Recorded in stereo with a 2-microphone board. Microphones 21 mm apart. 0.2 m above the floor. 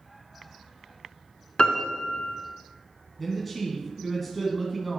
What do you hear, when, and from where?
1.6 s a piano: 50° left (ahead or behind), 1.8 m
3.2 s a man speaking: centre (ahead or behind), 2.0 m